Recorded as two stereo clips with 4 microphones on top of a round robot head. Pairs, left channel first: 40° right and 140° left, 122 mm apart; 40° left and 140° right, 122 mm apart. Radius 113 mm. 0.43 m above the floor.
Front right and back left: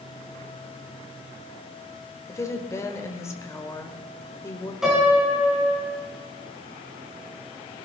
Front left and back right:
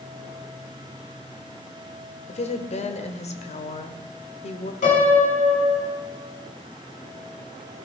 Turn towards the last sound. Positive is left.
turn(degrees=50)